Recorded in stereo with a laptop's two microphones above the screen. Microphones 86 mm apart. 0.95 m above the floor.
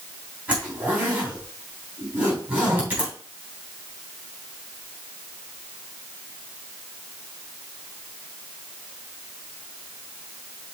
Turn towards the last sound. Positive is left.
turn(degrees=-20)  # may be behind; listen again after turning